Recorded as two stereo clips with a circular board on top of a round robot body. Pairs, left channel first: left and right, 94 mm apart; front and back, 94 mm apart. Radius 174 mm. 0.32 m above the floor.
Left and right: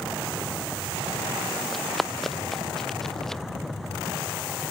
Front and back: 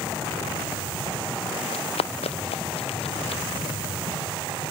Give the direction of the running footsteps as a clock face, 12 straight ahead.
12 o'clock.